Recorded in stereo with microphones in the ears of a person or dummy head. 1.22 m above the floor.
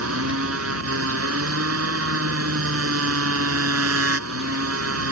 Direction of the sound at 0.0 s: 85° right.